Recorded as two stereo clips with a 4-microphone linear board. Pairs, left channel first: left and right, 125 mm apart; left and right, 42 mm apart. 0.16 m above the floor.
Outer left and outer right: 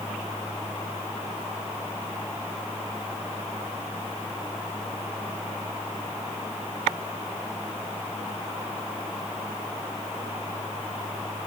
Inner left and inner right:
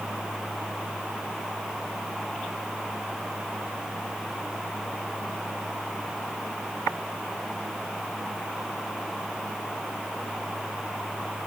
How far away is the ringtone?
No ringtone in this recording.